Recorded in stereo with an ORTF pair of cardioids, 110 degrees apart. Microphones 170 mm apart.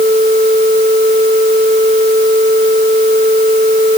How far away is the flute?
No flute in this recording.